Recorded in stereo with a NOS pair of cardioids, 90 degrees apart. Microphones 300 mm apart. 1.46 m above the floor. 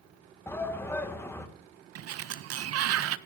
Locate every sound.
0.5 s a shout: 10° left, 2 m
1.9 s a sliding door: 55° right, 0.6 m